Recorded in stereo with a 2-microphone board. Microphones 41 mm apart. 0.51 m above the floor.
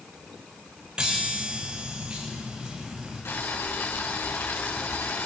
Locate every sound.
1.0 s a chime: 20° right (ahead or behind), 8 m
3.2 s boiling: 80° left, 7 m